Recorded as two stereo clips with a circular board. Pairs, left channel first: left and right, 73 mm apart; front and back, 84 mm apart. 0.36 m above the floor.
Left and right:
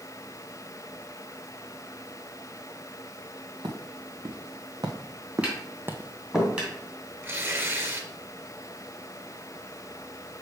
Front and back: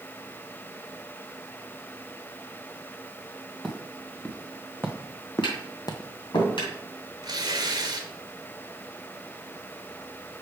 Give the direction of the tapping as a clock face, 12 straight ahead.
1 o'clock.